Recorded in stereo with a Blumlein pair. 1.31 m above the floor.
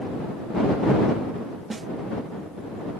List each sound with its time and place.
1.7 s a snare drum: 15° right